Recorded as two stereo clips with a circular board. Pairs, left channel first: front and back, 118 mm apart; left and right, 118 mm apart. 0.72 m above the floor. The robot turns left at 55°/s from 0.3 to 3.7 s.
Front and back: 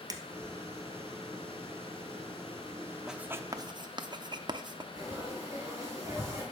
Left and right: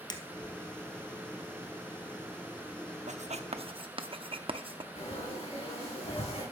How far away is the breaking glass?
About 1.1 m.